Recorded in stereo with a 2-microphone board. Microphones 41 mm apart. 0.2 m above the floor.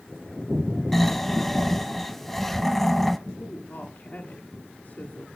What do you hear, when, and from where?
0.9 s snoring: 5° left (ahead or behind), 1.1 m
3.4 s a woman speaking: 50° left (ahead or behind), 2 m